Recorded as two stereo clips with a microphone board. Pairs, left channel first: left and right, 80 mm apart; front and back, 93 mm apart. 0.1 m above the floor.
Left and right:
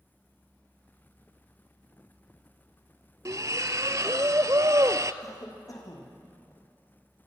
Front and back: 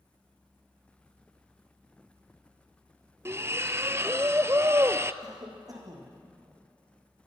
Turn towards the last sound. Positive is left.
turn(degrees=135)